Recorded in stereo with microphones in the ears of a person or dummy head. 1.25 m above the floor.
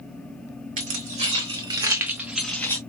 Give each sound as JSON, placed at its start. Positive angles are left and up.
{"t": 0.8, "sound": "keys jangling", "side_deg": -45, "distance_m": 1.8}